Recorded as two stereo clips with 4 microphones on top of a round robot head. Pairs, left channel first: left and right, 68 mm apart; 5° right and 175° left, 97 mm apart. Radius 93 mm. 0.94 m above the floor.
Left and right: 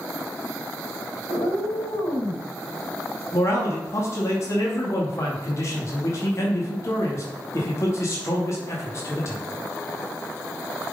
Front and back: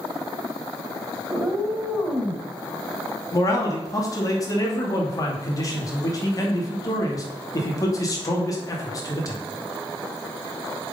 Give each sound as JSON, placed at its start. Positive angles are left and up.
{"t": 1.3, "sound": "a cat meowing", "azimuth_deg": 90, "distance_m": 3.0}
{"t": 3.3, "sound": "a man speaking", "azimuth_deg": 45, "distance_m": 2.5}